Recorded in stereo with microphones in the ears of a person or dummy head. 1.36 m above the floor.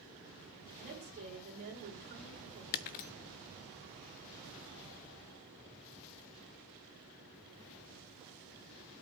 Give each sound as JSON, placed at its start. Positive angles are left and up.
{"t": 0.8, "sound": "a woman speaking", "side_deg": -45, "distance_m": 6.0}
{"t": 2.7, "sound": "breaking glass", "side_deg": 40, "distance_m": 0.6}